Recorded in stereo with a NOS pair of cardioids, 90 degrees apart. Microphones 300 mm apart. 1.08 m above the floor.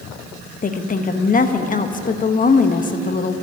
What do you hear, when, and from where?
0.6 s a woman speaking: 30° left, 1.1 m